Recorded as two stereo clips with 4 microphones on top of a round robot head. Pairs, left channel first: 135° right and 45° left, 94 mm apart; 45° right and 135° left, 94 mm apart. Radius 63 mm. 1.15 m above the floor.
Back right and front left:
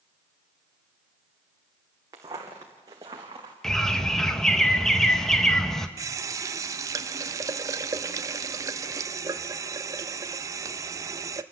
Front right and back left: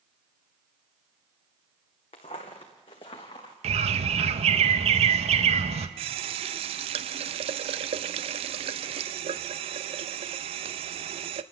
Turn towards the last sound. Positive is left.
turn(degrees=105)